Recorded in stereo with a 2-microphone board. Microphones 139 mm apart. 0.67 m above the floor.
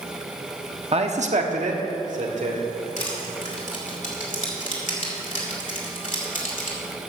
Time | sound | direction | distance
0.9 | a man speaking | 45° right (ahead or behind) | 0.9 m
3.0 | crushing | 65° left (ahead or behind) | 2.5 m